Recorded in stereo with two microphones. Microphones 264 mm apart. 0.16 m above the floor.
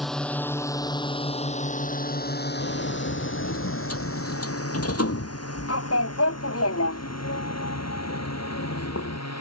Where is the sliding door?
65° left (ahead or behind).